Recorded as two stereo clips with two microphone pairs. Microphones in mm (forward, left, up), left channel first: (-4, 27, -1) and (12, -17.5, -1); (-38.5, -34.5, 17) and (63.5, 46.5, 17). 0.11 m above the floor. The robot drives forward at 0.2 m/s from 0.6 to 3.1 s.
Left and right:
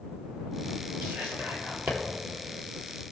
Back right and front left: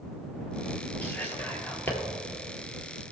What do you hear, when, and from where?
1.0 s whispering: 65° right, 2.5 m; by 2.0 s 70° right, 2.5 m